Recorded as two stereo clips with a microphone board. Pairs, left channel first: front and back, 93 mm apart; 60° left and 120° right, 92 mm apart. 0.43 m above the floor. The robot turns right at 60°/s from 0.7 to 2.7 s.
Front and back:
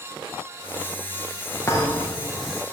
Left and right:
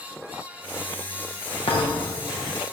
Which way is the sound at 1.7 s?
60° left.